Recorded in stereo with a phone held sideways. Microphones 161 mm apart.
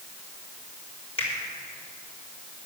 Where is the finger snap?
40° left (ahead or behind), 4.5 m.